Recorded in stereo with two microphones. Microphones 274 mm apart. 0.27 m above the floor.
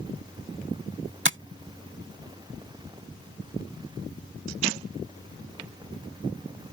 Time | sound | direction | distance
1.2 | tapping | 45° right (ahead or behind) | ?